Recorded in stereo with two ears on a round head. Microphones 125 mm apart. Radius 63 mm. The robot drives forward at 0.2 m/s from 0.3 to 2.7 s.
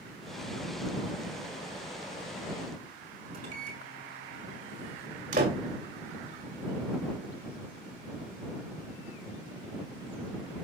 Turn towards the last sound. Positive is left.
turn(degrees=-60)  # may be behind; listen again after turning